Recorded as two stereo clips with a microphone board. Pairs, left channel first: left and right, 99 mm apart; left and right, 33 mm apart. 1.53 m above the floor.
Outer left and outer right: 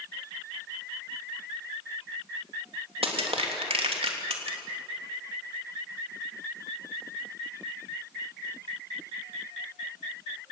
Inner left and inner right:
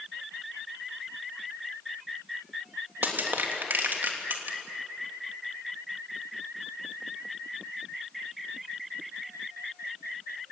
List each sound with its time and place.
3.0 s crushing: 85° right, 3 m